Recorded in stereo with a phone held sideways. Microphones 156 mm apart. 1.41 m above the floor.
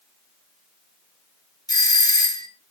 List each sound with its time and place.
1.7 s a doorbell: 25° left (ahead or behind), 1.3 m